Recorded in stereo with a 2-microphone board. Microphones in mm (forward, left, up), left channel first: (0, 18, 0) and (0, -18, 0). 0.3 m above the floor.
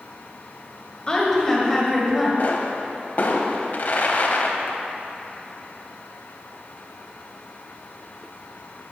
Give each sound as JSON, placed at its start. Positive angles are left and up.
{"t": 1.1, "sound": "a woman speaking", "side_deg": 25, "distance_m": 1.5}
{"t": 2.4, "sound": "a pop", "side_deg": 55, "distance_m": 0.6}